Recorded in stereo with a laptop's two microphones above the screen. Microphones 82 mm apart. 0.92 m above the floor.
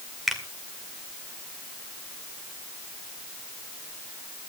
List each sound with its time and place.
0.3 s a finger snap: 5° right (ahead or behind), 2 m